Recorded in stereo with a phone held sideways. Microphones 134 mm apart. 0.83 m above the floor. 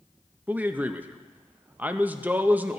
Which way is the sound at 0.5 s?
15° right (ahead or behind).